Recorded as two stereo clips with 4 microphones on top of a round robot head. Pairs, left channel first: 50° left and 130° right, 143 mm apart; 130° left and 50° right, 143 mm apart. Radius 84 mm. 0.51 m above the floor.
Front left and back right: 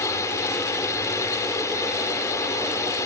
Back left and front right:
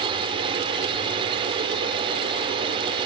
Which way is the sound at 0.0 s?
10° right.